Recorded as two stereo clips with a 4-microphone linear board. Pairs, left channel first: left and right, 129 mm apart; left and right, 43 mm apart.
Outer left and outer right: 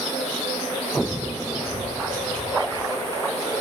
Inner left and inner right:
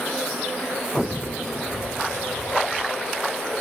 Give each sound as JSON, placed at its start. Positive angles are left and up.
{"t": 1.7, "sound": "footsteps", "side_deg": -85, "distance_m": 3.5}